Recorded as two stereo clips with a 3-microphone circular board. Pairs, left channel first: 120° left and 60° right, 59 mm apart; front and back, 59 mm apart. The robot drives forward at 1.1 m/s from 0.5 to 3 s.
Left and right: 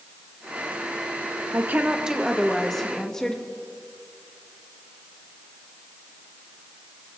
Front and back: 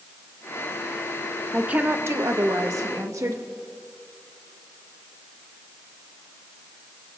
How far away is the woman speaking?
About 0.7 m.